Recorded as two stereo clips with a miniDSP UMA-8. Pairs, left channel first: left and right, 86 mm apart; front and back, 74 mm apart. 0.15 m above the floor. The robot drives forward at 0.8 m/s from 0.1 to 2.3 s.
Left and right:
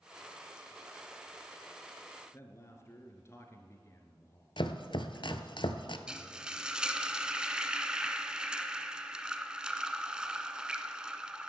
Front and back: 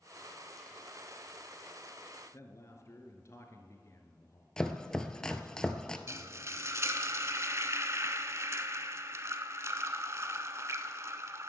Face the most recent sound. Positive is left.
turn(degrees=-165)